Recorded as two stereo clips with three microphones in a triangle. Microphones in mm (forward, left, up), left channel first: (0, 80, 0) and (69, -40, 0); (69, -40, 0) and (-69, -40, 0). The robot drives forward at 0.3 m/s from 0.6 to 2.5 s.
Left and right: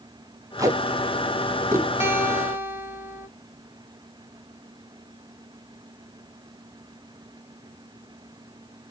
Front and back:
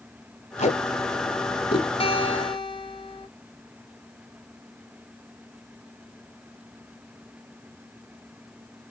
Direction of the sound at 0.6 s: Straight ahead.